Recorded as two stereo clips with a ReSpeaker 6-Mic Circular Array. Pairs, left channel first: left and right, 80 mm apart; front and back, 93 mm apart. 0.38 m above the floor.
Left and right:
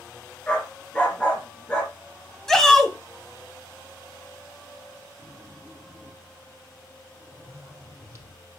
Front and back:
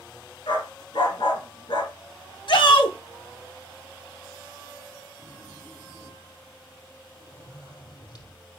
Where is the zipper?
35° right, 3 m.